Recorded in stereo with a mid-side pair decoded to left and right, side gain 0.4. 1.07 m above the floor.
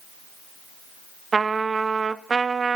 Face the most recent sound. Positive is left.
turn(degrees=-40)